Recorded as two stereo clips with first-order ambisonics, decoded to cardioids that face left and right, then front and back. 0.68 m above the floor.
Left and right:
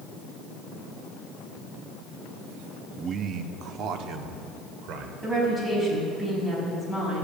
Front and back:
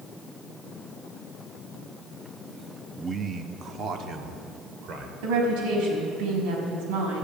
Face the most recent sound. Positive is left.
turn(degrees=-170)